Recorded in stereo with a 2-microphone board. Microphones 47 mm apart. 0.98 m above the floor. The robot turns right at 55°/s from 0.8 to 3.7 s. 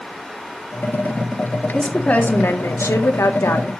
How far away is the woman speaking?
About 2 m.